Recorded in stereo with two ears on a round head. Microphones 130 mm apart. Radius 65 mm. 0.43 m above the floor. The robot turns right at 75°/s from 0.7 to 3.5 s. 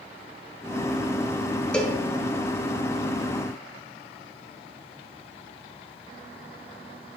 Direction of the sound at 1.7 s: 5° left (ahead or behind).